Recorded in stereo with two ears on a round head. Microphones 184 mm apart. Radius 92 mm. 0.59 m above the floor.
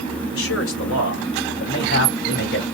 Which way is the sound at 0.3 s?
70° left (ahead or behind).